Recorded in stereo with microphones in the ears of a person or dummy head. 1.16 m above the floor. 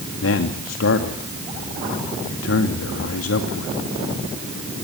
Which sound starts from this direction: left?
A man speaking, at 0.2 s.